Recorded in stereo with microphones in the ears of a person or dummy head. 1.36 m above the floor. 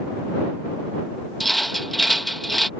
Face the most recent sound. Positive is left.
turn(degrees=5)  # may be behind; listen again after turning